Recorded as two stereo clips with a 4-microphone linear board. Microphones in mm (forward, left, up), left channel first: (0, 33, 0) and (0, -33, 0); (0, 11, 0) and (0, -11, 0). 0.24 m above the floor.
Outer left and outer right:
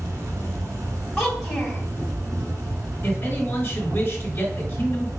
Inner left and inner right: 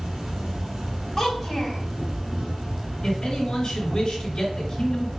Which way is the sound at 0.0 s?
60° right (ahead or behind).